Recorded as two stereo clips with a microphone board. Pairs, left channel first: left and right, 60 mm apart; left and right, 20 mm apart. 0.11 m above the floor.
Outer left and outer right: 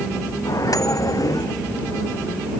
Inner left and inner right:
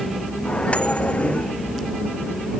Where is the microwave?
75° left (ahead or behind).